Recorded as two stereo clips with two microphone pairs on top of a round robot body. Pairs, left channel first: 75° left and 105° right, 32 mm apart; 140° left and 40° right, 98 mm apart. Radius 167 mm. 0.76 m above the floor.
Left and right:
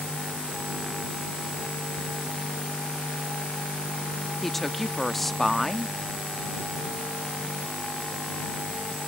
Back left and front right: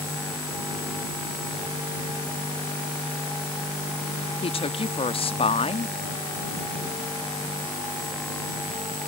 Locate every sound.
4.4 s a woman speaking: 160° left